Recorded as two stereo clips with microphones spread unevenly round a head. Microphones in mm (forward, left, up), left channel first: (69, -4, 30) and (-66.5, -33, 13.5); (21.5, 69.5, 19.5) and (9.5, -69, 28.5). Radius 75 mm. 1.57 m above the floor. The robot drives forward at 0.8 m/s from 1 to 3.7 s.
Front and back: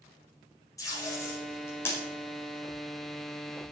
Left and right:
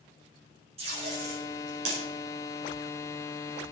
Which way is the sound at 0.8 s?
55° right.